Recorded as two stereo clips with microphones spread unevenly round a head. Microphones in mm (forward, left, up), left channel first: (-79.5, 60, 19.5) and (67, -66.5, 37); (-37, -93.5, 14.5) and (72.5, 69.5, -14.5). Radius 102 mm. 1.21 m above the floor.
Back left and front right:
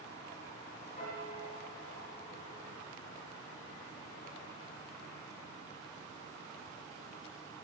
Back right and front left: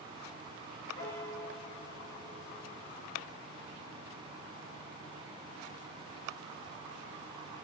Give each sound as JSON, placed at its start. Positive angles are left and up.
{"t": 1.0, "sound": "a piano", "azimuth_deg": -170, "distance_m": 4.0}